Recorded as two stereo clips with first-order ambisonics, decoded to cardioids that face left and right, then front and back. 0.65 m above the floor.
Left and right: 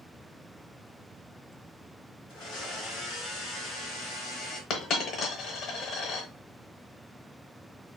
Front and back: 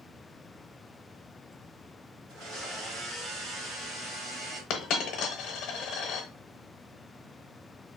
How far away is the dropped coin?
About 0.7 m.